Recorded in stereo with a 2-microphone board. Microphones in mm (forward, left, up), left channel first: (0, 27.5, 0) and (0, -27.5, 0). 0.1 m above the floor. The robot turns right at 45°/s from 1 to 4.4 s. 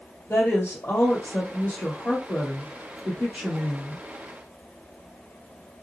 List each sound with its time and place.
0.3 s a woman speaking: 115° left, 2.5 m; by 4.0 s 110° right, 2.5 m